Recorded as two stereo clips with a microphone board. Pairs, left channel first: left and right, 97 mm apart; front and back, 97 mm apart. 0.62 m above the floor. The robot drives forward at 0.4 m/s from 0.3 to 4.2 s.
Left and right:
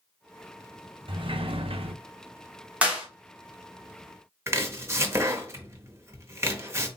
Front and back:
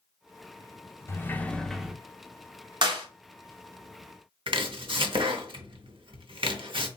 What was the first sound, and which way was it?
A sliding door, 60° right.